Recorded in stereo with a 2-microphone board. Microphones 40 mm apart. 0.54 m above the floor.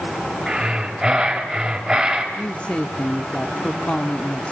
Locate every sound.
0.5 s breathing: 15° right (ahead or behind), 3.5 m
2.4 s a woman speaking: 30° left (ahead or behind), 1.1 m